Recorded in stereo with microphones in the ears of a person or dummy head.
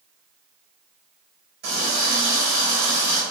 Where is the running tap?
55° right (ahead or behind), 1.1 m.